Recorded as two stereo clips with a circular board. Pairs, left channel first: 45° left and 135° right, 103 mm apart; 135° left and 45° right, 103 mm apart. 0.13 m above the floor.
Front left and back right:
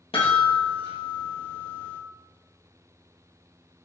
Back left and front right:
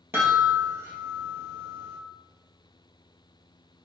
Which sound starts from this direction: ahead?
A chime, at 0.1 s.